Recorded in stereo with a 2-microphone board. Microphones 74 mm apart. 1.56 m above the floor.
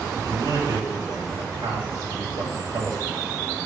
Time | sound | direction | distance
0.2 | a man speaking | 70° right (ahead or behind) | 2.5 m